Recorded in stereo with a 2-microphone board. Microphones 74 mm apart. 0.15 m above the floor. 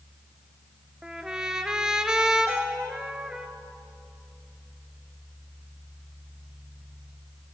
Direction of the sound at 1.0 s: 10° right (ahead or behind).